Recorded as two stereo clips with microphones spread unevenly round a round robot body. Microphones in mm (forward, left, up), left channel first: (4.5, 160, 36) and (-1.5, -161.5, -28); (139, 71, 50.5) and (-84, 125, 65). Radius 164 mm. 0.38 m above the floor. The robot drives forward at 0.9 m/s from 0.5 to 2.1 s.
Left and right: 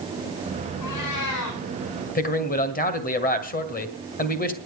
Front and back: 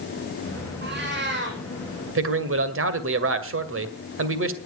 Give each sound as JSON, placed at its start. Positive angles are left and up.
{"t": 0.8, "sound": "a cat meowing", "azimuth_deg": 125, "distance_m": 6.0}
{"t": 2.1, "sound": "a man speaking", "azimuth_deg": 160, "distance_m": 2.0}